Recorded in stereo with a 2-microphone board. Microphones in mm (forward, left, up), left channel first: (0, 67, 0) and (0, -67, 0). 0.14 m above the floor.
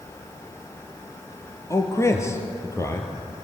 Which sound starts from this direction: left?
A man speaking, at 1.7 s.